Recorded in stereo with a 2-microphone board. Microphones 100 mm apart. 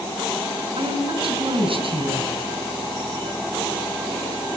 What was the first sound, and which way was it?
A woman speaking, 60° right (ahead or behind).